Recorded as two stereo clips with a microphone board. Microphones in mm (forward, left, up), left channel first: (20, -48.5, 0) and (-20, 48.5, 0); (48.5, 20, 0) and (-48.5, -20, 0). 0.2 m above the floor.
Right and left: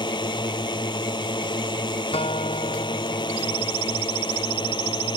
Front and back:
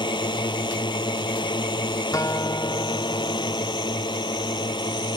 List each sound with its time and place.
0.0 s a drone: 25° right
2.1 s a guitar: 40° right